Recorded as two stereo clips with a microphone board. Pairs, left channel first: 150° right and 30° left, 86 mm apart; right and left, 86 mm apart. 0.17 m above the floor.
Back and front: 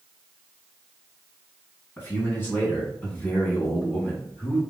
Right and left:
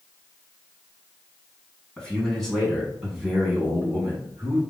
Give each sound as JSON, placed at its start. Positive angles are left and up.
{"t": 2.0, "sound": "a man speaking", "azimuth_deg": -155, "distance_m": 1.8}